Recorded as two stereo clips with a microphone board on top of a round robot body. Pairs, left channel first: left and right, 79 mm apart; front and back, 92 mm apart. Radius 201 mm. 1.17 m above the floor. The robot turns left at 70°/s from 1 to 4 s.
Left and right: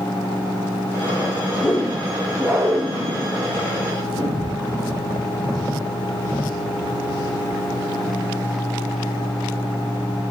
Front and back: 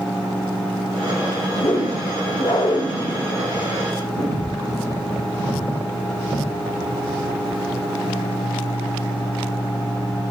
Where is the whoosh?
30° left, 4.5 m; by 4.6 s 140° right, 4.5 m.